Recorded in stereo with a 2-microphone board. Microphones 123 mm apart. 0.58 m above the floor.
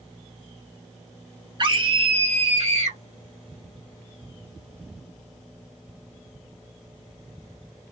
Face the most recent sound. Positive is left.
turn(degrees=-65)  # may be behind; listen again after turning